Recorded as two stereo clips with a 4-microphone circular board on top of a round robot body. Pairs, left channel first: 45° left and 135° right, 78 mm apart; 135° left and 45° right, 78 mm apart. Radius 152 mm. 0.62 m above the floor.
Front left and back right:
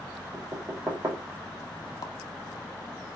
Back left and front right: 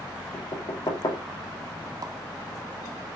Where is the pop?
Straight ahead, 0.9 m.